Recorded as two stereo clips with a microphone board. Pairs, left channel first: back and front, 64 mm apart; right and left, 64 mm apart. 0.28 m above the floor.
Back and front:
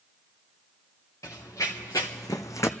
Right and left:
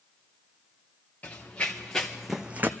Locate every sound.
1.2 s running footsteps: 150° right, 2.0 m; by 2.7 s 140° left, 0.7 m